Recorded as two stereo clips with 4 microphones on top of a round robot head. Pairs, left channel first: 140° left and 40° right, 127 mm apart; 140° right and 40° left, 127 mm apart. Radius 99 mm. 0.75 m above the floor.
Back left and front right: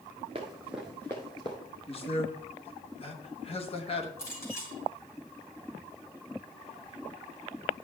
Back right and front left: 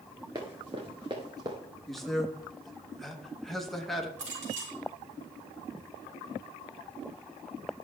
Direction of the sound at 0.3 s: 10° right.